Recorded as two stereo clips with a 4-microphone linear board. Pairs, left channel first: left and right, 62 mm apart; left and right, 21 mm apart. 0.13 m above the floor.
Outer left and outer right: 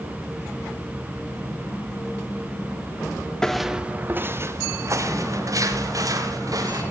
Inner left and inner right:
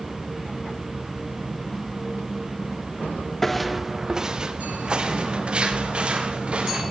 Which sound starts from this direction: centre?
Footsteps, at 3.4 s.